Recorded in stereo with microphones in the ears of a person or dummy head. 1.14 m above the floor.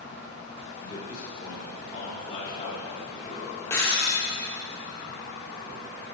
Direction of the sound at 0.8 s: 20° left (ahead or behind).